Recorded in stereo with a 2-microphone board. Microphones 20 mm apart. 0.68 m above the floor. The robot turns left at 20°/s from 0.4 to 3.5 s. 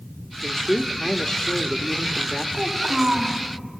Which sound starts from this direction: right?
A child speaking, at 2.5 s.